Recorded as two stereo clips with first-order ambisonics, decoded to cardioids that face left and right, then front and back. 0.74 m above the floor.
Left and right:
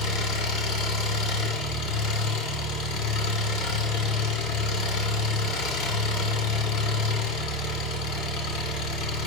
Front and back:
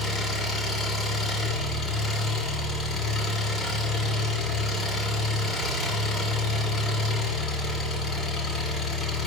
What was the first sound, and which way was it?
An engine running, 65° left.